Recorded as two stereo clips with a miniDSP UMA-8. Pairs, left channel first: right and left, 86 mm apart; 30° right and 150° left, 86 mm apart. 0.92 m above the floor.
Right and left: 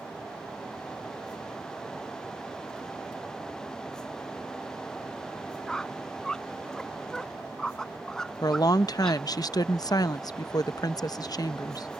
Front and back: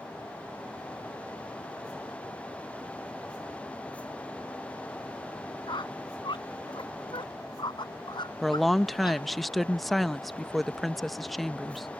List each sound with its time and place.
5.7 s a squeak: 10° right
8.4 s a woman speaking: 120° right